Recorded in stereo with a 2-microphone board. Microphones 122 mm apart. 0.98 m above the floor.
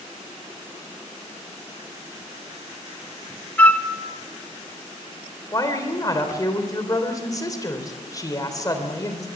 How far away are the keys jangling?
I don't hear keys jangling.